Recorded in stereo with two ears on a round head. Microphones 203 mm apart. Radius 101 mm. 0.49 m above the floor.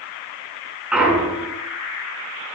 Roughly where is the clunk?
Centre.